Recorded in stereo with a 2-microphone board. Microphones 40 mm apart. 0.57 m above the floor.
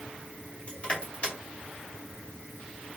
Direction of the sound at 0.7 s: 30° left (ahead or behind).